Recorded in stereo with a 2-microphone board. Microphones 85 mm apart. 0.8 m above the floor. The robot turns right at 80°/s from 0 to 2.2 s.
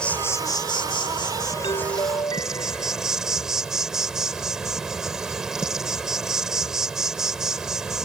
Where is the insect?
10° left; by 8.1 s 175° right.